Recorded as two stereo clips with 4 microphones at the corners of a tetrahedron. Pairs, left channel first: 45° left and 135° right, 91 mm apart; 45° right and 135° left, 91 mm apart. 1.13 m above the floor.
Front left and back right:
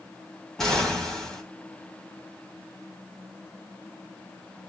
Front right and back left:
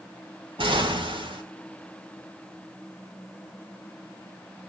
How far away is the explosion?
About 2.5 m.